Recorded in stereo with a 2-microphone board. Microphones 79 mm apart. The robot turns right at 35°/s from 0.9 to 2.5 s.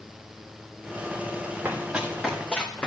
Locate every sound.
1.6 s running footsteps: 25° right (ahead or behind), 4.5 m; by 2.9 s 15° left (ahead or behind), 3.5 m